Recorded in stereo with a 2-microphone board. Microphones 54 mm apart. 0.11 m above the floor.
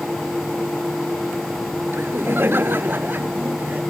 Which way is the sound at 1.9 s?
45° right (ahead or behind).